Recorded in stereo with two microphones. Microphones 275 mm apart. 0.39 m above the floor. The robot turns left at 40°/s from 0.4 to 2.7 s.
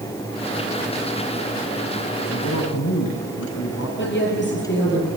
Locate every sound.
2.3 s a man speaking: 65° left (ahead or behind), 3 m; by 3.9 s 75° left (ahead or behind), 3 m
4.0 s a woman speaking: 45° left (ahead or behind), 8 m